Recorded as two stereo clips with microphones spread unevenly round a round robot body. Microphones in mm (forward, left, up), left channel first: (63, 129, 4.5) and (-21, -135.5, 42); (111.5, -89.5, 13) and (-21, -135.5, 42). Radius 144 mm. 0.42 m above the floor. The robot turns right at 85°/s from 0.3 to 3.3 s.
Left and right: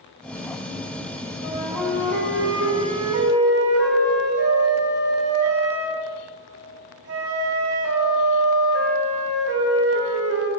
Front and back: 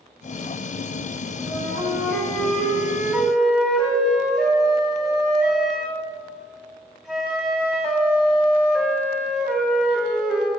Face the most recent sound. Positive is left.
turn(degrees=-70)